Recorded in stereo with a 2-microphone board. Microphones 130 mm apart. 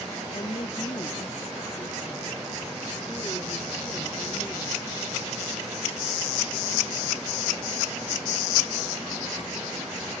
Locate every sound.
0.3 s a woman speaking: 45° left (ahead or behind); by 4.9 s 25° left (ahead or behind)